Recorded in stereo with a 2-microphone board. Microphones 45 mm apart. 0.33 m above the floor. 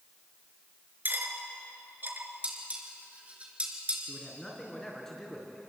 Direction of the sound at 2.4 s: 30° right (ahead or behind).